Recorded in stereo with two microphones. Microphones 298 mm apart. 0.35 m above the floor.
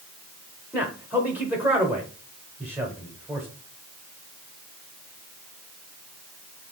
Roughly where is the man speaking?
Centre.